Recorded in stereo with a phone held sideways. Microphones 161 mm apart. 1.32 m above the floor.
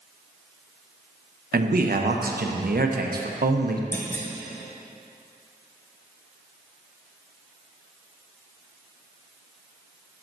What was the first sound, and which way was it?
A man speaking, 70° right (ahead or behind).